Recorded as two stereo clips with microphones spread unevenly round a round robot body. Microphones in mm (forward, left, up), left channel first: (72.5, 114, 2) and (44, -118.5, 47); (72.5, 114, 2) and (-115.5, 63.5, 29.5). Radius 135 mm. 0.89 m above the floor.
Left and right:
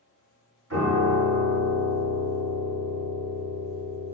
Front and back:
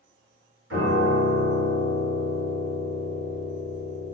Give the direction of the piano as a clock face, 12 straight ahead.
5 o'clock.